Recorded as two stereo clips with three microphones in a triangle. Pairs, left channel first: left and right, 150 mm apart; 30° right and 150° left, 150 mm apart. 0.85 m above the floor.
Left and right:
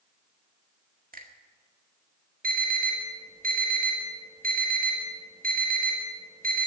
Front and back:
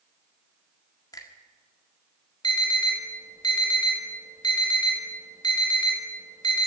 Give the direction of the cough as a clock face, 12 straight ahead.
I don't hear a cough.